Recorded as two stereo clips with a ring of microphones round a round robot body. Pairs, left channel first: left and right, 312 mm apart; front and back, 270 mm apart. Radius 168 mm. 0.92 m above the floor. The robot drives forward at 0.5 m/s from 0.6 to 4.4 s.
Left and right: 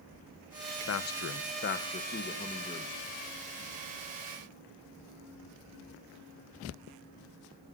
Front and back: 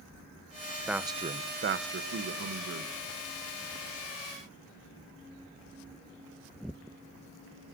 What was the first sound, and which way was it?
A man speaking, 90° left.